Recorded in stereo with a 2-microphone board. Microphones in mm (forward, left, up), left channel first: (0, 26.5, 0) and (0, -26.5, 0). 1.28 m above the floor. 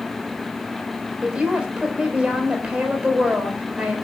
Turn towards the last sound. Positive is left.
turn(degrees=-20)  # may be behind; listen again after turning